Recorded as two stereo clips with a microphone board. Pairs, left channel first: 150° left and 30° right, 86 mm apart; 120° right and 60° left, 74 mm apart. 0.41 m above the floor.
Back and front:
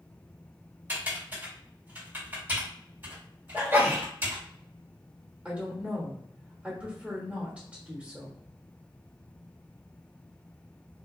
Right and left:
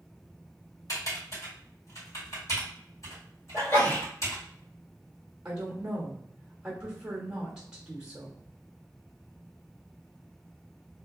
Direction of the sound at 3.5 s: 85° right.